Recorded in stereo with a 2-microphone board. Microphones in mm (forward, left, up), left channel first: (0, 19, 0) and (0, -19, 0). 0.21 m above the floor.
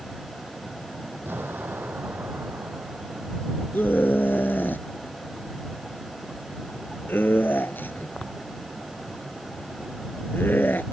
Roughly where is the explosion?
Right.